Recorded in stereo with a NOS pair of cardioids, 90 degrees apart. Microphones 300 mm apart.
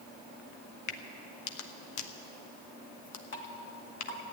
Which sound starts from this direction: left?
A crack, at 0.9 s.